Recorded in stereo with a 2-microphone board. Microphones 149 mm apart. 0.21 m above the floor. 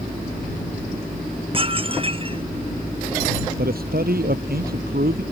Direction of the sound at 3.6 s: 80° right.